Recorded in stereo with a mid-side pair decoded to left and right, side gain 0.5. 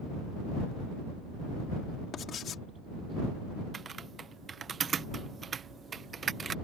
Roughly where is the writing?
Ahead left.